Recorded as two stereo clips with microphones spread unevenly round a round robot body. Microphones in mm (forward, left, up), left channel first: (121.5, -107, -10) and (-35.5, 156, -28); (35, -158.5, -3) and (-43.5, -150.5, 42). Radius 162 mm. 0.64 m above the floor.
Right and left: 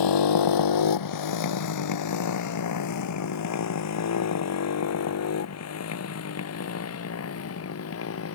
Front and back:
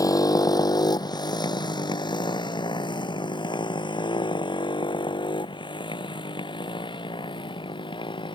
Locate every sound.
0.0 s a motorcycle: 50° right; by 8.3 s 15° right